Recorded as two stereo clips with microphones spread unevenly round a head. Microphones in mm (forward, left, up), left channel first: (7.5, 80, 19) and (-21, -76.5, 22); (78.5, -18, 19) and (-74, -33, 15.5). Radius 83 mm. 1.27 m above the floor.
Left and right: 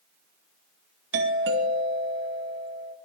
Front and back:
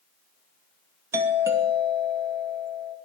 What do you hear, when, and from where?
1.1 s a doorbell: 100° right, 2.5 m